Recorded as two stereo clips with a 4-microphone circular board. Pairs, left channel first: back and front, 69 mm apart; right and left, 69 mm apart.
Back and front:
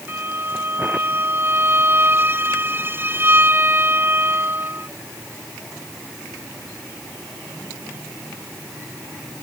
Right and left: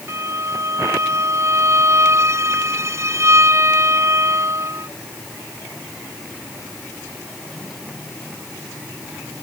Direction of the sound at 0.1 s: 50° left.